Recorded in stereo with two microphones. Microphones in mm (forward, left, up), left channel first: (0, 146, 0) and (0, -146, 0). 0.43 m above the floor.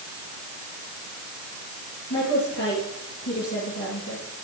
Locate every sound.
2.1 s a woman speaking: 85° left, 10 m